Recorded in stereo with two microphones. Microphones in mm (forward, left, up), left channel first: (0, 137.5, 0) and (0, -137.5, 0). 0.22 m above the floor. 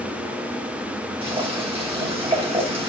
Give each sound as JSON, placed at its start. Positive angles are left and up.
{"t": 1.2, "sound": "boiling", "side_deg": -20, "distance_m": 1.5}